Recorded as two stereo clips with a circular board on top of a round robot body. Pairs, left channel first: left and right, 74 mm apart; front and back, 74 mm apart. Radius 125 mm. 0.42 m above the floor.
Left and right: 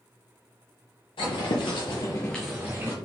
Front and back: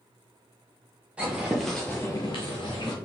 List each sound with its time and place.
1.2 s footsteps: 105° left, 0.9 m; by 3.0 s 30° right, 0.8 m